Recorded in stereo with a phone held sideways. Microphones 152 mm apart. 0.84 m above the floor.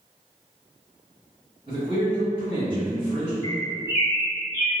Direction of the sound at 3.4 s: 20° right (ahead or behind).